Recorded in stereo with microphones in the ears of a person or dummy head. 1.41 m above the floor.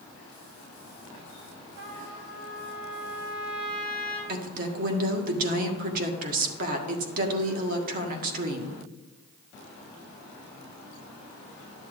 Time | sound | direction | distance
1.8 | a trumpet | 85° right | 4 m
4.3 | a woman speaking | 50° right (ahead or behind) | 1.6 m